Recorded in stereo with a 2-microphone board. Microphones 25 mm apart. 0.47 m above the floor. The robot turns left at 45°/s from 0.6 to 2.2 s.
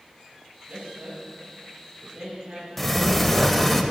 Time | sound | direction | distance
0.7 | a man speaking | 55° right (ahead or behind) | 2 m
2.8 | a sliding door | 10° left (ahead or behind) | 0.5 m